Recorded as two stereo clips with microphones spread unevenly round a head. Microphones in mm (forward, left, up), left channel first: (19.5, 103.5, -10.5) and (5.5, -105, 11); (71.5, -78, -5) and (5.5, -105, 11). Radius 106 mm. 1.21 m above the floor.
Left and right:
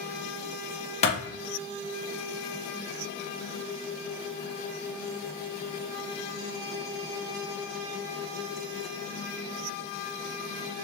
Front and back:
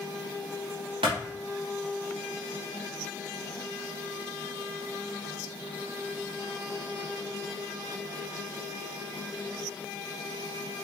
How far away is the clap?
About 0.9 m.